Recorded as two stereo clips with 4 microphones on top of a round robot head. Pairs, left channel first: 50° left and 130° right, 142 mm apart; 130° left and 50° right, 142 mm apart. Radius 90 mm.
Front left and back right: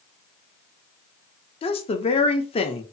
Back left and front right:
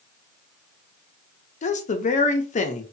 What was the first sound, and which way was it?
A woman speaking, 95° left.